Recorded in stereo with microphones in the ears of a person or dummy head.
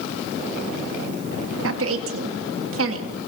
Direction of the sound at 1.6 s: 75° right (ahead or behind).